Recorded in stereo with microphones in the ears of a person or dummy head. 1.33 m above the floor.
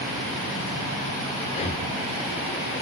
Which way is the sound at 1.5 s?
30° left (ahead or behind).